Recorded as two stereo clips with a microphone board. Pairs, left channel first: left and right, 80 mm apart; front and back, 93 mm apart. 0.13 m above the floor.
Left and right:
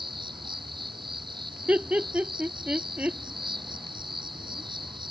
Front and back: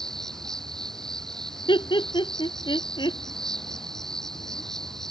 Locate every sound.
0.0 s an insect: 85° right
1.7 s laughter: 20° right